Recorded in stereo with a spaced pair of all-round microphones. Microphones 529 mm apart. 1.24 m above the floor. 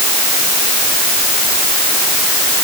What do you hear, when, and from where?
Only background noise.